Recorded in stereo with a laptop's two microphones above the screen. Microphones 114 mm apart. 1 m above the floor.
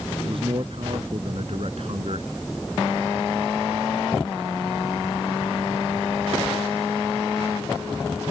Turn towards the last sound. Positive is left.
turn(degrees=-65)  # may be behind; listen again after turning